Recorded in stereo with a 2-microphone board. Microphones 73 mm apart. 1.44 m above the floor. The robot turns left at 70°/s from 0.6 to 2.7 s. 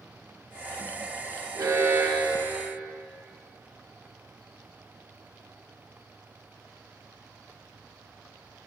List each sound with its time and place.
1.6 s an alarm: 105° right, 1.5 m; by 2.8 s 170° left, 1.5 m